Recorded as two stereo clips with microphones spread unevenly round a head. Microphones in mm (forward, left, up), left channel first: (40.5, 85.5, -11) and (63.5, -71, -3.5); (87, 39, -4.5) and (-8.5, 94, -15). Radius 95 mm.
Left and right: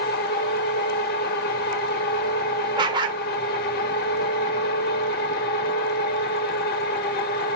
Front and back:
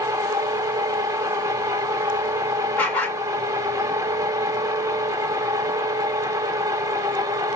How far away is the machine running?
About 0.8 m.